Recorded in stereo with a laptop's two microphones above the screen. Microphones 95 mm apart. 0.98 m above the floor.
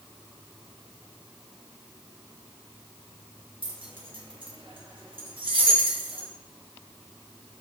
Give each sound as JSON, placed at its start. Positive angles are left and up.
{"t": 3.6, "sound": "keys jangling", "side_deg": -65, "distance_m": 0.6}